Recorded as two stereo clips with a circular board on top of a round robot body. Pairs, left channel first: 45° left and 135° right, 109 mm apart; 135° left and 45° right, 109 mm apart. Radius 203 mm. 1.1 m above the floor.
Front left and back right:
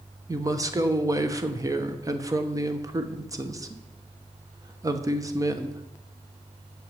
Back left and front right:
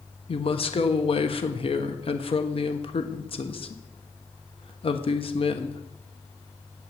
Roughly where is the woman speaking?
Behind.